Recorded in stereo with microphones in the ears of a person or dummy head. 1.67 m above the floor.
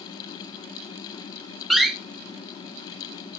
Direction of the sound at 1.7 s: 5° right (ahead or behind).